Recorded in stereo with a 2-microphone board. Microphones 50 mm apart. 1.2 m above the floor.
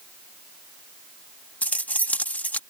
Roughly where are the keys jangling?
Left.